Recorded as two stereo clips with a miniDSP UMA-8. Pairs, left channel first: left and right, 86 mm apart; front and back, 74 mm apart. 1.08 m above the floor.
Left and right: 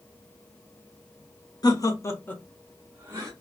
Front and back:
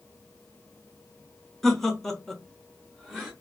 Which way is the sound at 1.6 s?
85° left.